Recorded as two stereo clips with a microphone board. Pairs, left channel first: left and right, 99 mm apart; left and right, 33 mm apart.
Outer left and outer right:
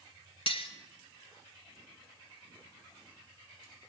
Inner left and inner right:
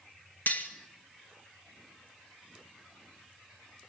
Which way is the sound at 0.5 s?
65° left (ahead or behind).